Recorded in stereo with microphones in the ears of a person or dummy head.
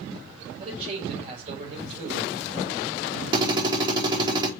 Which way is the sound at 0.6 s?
40° right (ahead or behind).